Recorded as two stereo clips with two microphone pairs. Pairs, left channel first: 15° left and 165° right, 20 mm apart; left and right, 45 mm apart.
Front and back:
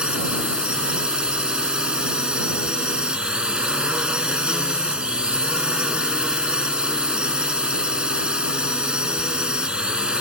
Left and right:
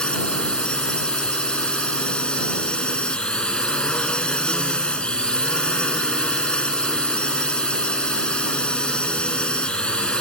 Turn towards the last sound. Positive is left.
turn(degrees=155)